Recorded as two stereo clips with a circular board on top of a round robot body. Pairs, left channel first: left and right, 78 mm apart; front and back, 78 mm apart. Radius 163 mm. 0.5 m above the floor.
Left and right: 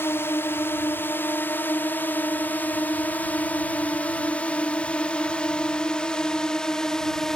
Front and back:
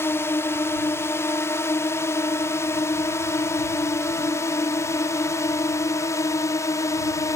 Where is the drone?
45° left; by 7.3 s 10° left.